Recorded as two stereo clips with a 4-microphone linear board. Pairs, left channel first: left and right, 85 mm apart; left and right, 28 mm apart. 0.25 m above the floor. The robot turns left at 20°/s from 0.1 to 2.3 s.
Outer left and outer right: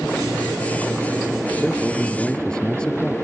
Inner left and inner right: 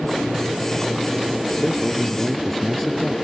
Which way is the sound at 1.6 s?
Centre (ahead or behind).